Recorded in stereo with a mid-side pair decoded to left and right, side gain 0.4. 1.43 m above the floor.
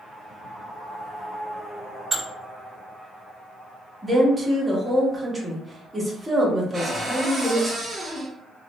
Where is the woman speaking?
15° right, 1.4 m.